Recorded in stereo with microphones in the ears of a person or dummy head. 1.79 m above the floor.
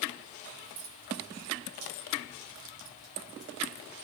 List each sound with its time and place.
0.6 s keys jangling: 75° right (ahead or behind), 3.5 m; by 4.0 s 35° left (ahead or behind), 1.2 m